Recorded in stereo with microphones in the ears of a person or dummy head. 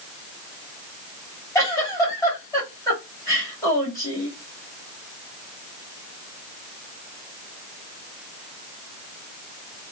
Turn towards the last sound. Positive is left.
turn(degrees=15)  # may be behind; listen again after turning